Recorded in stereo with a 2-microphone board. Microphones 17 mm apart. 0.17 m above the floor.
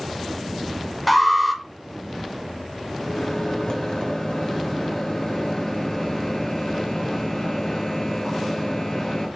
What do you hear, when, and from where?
1.1 s an alarm: centre (ahead or behind), 0.8 m
3.0 s a microwave: 45° left (ahead or behind), 1.8 m